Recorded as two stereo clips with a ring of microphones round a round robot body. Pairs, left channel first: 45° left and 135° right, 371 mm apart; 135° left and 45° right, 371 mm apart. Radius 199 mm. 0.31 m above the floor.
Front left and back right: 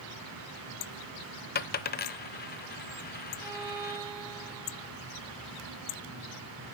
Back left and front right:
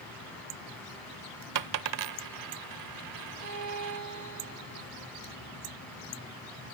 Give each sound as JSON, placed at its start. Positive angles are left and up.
{"t": 1.6, "sound": "a dropped coin", "azimuth_deg": -15, "distance_m": 0.7}
{"t": 3.4, "sound": "a violin", "azimuth_deg": -95, "distance_m": 4.0}